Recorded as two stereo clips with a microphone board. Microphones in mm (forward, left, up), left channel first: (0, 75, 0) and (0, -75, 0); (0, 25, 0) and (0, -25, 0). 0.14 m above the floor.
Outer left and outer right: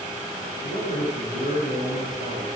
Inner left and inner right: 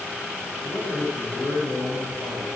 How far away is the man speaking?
About 9.5 m.